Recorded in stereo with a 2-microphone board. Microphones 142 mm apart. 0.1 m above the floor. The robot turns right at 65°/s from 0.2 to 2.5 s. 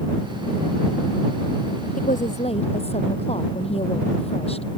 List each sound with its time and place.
2.0 s a woman speaking: 95° left; by 4.7 s 130° left